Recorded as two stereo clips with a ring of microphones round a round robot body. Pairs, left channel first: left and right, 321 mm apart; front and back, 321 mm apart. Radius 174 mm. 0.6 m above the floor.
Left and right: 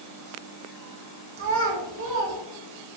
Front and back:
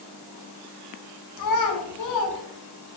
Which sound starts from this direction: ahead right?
A child speaking, at 1.4 s.